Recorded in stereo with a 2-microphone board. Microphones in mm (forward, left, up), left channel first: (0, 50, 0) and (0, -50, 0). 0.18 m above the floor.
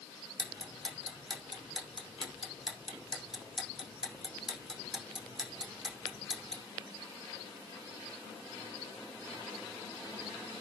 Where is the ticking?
5° right (ahead or behind), 5 m.